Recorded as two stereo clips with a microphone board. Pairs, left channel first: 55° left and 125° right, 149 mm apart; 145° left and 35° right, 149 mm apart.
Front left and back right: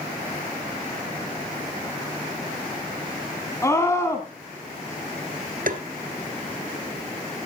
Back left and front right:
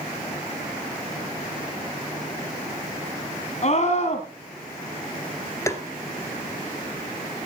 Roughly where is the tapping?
Behind right.